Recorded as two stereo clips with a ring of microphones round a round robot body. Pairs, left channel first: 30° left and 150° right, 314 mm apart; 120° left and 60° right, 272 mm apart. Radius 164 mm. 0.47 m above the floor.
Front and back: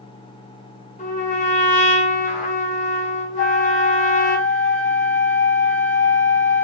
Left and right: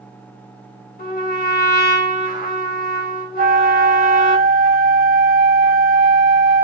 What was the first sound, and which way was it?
A trumpet, 85° left.